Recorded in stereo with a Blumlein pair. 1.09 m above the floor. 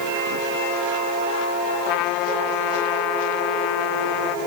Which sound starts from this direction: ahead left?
A trumpet, at 1.9 s.